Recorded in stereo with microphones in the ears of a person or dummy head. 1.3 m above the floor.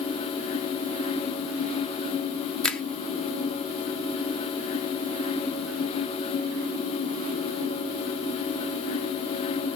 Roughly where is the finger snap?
Centre.